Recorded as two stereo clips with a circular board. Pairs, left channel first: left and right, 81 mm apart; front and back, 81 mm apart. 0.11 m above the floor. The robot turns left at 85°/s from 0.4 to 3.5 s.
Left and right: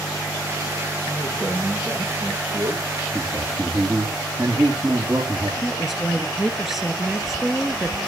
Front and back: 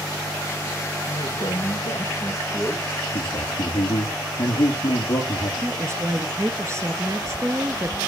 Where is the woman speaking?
175° right, 1.8 m.